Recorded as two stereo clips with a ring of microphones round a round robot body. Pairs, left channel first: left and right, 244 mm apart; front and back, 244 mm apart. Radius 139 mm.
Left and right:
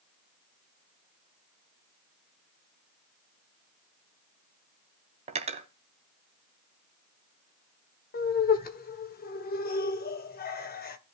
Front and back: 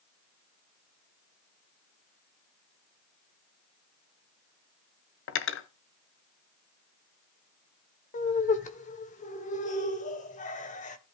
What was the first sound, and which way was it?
Cutlery clinking, 30° right.